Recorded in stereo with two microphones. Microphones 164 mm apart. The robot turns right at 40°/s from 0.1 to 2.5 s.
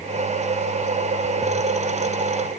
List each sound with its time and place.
Only background noise.